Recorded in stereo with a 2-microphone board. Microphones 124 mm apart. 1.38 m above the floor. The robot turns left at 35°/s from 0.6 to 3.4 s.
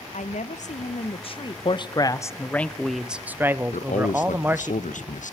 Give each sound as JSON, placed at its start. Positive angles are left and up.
{"t": 0.1, "sound": "a woman speaking", "azimuth_deg": 70, "distance_m": 1.0}
{"t": 1.6, "sound": "a man speaking", "azimuth_deg": 45, "distance_m": 0.9}
{"t": 3.7, "sound": "a man speaking", "side_deg": 75, "distance_m": 1.0}